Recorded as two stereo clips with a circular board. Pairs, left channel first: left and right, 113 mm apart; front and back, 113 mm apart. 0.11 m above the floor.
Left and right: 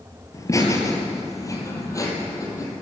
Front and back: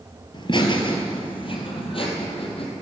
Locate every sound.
0.3 s laughter: 35° left, 2.5 m; by 2.7 s 30° left, 4 m